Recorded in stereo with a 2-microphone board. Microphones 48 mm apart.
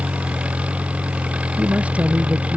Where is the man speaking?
30° right (ahead or behind).